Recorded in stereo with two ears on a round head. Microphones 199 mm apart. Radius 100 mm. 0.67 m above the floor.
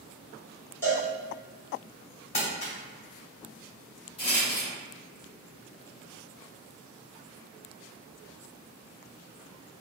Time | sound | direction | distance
0.8 | a cowbell | 10° left (ahead or behind) | 1.6 m
2.3 | crumpling | 35° left (ahead or behind) | 1.9 m
4.2 | a rattle | 25° left (ahead or behind) | 1.4 m